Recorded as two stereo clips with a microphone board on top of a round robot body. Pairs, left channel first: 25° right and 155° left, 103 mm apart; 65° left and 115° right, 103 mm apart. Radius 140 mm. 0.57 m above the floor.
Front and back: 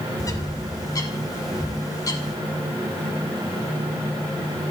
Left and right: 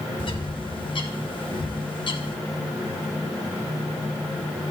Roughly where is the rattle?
I don't hear a rattle.